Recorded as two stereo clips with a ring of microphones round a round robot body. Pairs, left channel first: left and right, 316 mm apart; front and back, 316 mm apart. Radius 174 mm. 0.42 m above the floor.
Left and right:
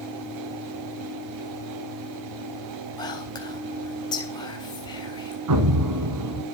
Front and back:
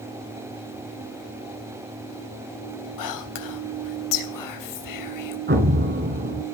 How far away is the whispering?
About 3 m.